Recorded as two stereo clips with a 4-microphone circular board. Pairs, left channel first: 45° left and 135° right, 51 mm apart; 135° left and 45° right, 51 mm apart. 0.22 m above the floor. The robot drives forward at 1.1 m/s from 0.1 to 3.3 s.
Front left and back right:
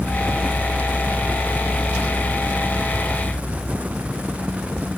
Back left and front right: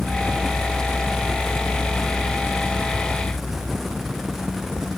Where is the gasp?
I don't hear a gasp.